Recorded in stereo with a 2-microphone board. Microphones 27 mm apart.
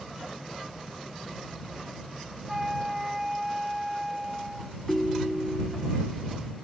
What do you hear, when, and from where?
2.5 s a flute: 10° right (ahead or behind)
4.9 s a ringtone: 10° left (ahead or behind)